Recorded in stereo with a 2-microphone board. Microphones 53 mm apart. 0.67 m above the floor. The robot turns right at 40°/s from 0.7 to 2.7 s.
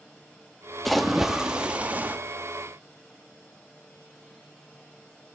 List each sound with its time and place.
0.8 s a splash: 175° left, 0.6 m; by 2.2 s 130° right, 0.6 m